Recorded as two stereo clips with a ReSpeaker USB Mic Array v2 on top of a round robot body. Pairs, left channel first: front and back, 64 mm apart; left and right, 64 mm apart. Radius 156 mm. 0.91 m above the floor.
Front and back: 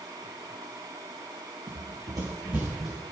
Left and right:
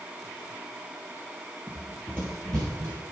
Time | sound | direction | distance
1.7 | running footsteps | 175° right | 1.5 m